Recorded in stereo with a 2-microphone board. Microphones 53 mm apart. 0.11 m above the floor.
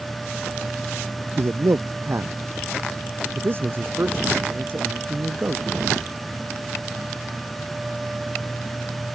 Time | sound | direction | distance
1.4 | a man speaking | 55° right (ahead or behind) | ?